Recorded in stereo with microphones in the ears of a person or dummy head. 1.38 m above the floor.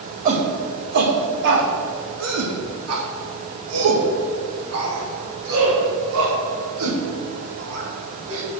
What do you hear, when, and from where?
0.2 s a shout: 45° right (ahead or behind), 2.0 m; by 8.4 s 70° right (ahead or behind), 5 m